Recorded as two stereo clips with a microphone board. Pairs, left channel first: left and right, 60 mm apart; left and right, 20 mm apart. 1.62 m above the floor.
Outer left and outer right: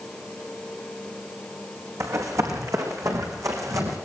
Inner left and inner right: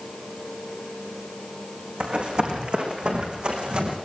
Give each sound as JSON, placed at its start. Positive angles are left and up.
{"t": 2.0, "sound": "running footsteps", "side_deg": -65, "distance_m": 4.5}